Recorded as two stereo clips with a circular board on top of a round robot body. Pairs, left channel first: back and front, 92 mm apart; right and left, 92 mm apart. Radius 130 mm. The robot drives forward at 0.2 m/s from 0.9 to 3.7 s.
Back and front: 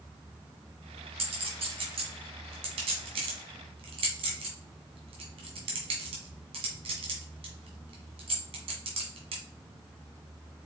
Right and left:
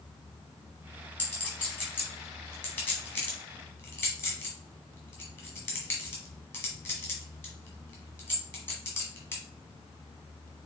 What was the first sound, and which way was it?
A clink, 15° right.